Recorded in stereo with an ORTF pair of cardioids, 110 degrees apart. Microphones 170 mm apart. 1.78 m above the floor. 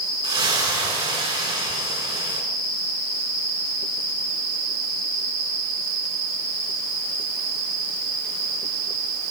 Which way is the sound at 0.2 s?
30° right.